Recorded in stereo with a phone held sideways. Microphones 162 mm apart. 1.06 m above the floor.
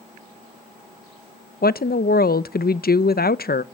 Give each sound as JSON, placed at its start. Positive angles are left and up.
{"t": 1.6, "sound": "a woman speaking", "side_deg": 70, "distance_m": 0.6}